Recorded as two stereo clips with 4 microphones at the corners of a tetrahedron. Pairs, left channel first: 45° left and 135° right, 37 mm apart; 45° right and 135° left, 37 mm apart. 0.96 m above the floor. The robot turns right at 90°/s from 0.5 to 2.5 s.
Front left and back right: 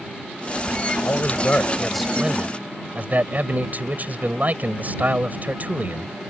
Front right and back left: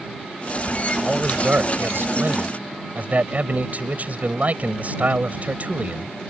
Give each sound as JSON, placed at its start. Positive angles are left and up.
{"t": 1.0, "sound": "a man speaking", "azimuth_deg": 45}